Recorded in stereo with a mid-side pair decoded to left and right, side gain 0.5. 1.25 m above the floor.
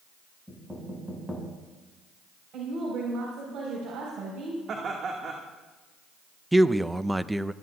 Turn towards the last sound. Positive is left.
turn(degrees=-10)